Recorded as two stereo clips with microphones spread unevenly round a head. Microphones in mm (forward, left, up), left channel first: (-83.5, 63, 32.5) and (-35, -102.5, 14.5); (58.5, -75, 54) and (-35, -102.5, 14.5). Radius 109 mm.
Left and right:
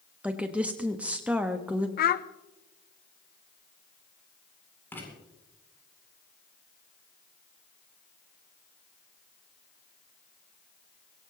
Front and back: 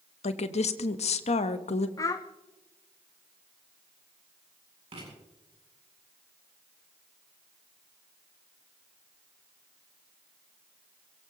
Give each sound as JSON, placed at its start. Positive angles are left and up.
{"t": 0.2, "sound": "a woman speaking", "azimuth_deg": 10, "distance_m": 1.1}
{"t": 2.0, "sound": "a child speaking", "azimuth_deg": 90, "distance_m": 0.5}
{"t": 4.9, "sound": "writing", "azimuth_deg": -175, "distance_m": 8.0}